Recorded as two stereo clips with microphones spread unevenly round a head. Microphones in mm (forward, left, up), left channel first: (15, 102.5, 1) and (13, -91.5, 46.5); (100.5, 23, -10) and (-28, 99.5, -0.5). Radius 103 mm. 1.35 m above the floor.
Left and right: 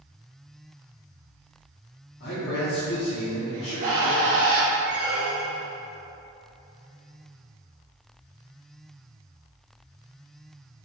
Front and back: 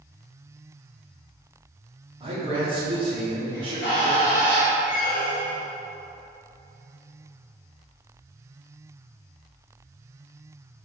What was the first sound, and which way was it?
A man speaking, 95° left.